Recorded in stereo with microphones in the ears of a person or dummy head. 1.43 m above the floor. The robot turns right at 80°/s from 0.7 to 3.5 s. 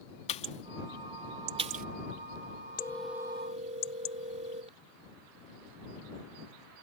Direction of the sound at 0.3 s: 30° left (ahead or behind).